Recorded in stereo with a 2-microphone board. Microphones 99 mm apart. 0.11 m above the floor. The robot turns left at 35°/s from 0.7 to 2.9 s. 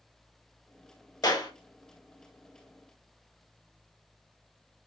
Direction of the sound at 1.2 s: 35° left (ahead or behind).